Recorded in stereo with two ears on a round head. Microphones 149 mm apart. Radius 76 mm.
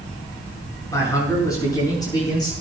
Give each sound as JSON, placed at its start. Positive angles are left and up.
{"t": 0.9, "sound": "a man speaking", "side_deg": 20, "distance_m": 7.0}